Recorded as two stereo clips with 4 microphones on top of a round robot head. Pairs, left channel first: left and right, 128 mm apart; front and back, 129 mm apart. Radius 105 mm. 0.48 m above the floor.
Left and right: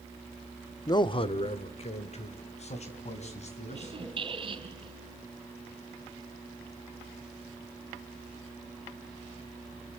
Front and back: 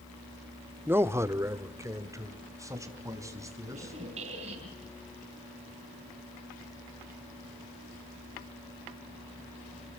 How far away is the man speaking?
About 1.0 m.